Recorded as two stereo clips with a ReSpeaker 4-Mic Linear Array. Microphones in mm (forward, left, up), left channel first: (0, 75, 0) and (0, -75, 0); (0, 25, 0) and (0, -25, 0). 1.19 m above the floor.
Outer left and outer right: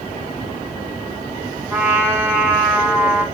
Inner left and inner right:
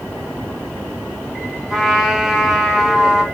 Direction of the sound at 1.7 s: 10° right (ahead or behind).